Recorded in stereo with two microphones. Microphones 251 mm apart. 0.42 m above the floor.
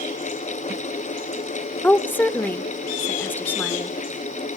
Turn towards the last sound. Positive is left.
turn(degrees=5)  # may be behind; listen again after turning